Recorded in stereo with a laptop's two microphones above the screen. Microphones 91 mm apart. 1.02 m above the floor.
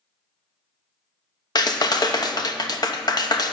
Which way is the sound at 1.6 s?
50° left (ahead or behind).